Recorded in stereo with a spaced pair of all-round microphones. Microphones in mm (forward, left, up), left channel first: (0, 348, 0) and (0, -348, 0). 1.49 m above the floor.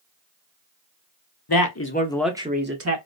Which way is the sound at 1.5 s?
35° left (ahead or behind).